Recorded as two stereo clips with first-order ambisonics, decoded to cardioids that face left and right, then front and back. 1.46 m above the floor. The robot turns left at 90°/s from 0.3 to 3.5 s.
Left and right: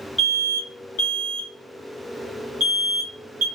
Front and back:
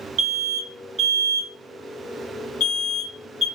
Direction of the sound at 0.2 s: 170° left.